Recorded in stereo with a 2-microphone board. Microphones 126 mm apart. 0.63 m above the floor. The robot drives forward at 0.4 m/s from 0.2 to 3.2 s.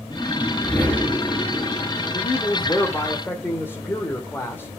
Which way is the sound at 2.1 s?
20° left (ahead or behind).